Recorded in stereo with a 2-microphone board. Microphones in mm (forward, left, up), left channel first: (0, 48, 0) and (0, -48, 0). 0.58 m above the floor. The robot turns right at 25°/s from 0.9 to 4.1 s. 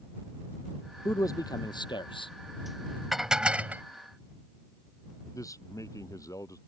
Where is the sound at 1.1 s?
35° left; by 2.3 s 65° left.